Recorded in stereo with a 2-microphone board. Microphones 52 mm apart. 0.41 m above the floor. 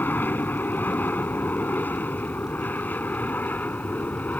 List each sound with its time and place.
0.0 s an aircraft: 40° left (ahead or behind); by 4.4 s 35° left (ahead or behind)